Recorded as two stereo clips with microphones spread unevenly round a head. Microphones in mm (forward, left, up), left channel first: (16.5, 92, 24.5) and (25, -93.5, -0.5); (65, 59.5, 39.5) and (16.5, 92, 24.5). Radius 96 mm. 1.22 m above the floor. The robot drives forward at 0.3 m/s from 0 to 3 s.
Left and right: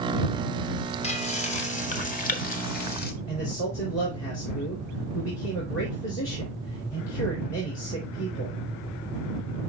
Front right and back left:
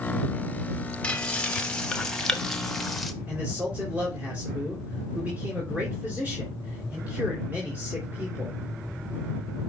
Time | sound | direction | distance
1.0 | frying | 35° left | 1.6 m
3.3 | a man speaking | 85° left | 3 m